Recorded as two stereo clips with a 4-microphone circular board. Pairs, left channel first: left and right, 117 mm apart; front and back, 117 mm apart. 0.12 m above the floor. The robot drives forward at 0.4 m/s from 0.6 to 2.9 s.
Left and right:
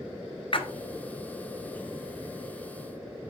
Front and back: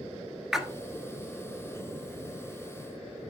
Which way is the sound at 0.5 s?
95° left.